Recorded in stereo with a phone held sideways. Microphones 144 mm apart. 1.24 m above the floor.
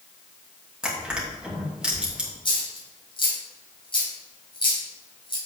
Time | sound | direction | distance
0.8 | crushing | 5° right (ahead or behind) | 2.5 m
2.5 | a dropped coin | 35° left (ahead or behind) | 2.5 m